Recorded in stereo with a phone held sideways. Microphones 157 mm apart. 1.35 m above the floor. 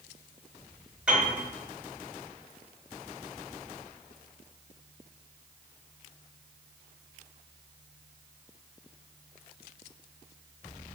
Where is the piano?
10° right (ahead or behind), 1.3 m.